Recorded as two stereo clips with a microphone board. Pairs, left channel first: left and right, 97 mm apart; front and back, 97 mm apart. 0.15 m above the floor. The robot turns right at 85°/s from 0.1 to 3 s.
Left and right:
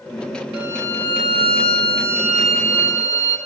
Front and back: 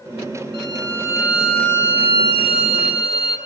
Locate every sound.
0.5 s a violin: 165° right, 1.5 m; by 3.4 s 45° left, 1.5 m